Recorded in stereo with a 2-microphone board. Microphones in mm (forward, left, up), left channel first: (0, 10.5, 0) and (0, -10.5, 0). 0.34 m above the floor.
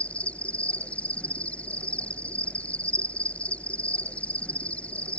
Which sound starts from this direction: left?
An insect, at 0.0 s.